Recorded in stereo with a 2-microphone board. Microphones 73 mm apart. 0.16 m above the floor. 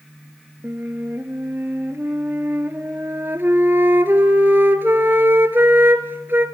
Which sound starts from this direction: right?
A flute, at 0.6 s.